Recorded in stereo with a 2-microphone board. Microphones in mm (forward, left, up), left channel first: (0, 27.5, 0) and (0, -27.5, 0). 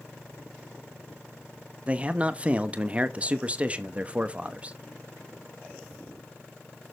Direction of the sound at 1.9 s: 25° right (ahead or behind).